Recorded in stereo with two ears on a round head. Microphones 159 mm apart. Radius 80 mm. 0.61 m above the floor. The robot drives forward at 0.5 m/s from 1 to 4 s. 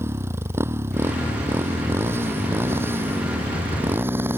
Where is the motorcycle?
15° right (ahead or behind); by 4.4 s 10° right (ahead or behind).